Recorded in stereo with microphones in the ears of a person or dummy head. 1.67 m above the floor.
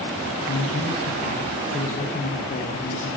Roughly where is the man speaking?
Left.